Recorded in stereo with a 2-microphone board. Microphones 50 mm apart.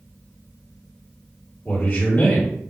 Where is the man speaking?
40° left (ahead or behind), 1.7 m.